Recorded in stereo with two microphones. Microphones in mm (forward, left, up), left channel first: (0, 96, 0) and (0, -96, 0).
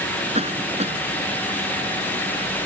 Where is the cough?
35° right (ahead or behind).